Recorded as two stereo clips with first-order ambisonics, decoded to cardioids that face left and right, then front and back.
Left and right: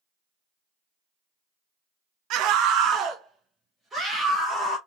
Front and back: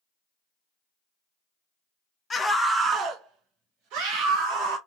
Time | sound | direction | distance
2.3 | a scream | 70° right | 0.7 m